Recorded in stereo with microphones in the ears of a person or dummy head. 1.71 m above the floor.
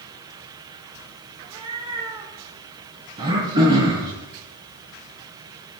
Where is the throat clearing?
30° right (ahead or behind), 6.5 m.